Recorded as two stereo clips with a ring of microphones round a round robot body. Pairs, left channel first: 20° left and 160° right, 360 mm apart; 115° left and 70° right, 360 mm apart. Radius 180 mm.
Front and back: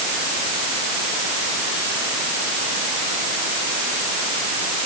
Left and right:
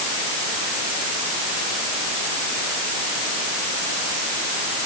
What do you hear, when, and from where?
Only background noise.